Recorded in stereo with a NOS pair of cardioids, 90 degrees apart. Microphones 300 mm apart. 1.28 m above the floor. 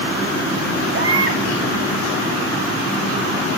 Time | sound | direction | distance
0.9 | a baby crying | 45° right | 3.5 m